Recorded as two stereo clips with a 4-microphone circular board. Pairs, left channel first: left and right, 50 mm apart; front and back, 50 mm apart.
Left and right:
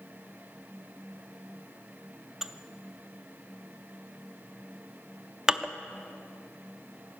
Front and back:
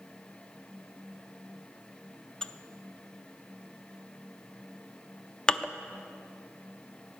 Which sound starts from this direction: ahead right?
Dishes clattering, at 2.4 s.